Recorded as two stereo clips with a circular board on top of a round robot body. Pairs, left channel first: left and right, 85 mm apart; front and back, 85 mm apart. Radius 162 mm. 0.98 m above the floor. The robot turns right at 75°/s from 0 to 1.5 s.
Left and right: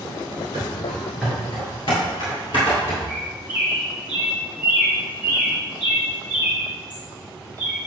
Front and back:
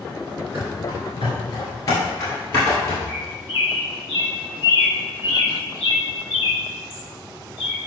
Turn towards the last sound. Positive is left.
turn(degrees=-20)